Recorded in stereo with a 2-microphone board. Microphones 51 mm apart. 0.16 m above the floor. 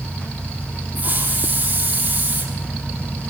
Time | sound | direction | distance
0.9 | a hiss | 35° right (ahead or behind) | 4 m